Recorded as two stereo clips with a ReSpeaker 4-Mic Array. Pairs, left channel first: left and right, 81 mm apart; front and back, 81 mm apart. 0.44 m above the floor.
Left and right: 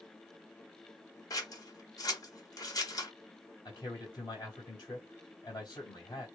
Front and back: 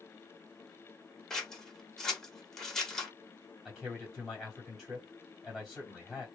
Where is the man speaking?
90° left, 2.0 m.